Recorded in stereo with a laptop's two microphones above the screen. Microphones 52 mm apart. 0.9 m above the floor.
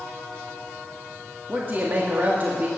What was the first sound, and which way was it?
A man speaking, 40° right (ahead or behind).